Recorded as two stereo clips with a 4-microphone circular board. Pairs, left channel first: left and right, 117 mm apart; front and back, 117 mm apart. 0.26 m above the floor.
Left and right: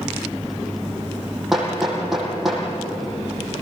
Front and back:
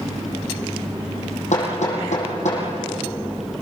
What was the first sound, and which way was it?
Hammering, straight ahead.